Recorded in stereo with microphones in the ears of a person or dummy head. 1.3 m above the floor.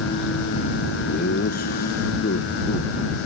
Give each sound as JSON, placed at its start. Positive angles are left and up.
{"t": 1.1, "sound": "laughter", "side_deg": 50}